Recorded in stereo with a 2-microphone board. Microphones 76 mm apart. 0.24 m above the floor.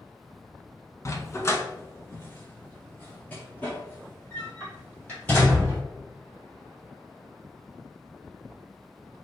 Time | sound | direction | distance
1.1 | a dog barking | 40° left (ahead or behind) | 0.7 m